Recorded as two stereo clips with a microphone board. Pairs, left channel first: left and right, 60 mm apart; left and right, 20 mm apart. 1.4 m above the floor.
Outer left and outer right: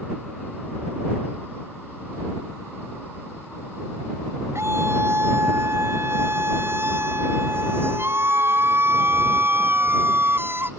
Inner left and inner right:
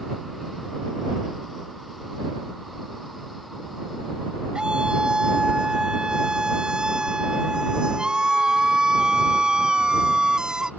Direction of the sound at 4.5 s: 50° right (ahead or behind).